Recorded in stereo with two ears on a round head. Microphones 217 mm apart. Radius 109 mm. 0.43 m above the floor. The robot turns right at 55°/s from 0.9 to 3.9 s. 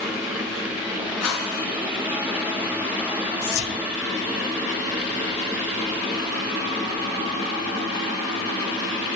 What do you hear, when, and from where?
1.2 s a whoosh: 80° left, 6 m; by 1.6 s 60° left (ahead or behind), 6 m
3.4 s whispering: 65° left (ahead or behind), 1.6 m; by 3.8 s 55° left (ahead or behind), 1.6 m